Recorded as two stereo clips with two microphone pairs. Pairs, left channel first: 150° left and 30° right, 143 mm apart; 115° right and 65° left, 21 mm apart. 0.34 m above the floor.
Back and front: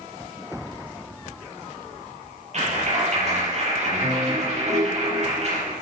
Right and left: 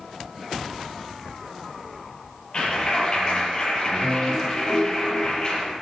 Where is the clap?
65° right, 7 m.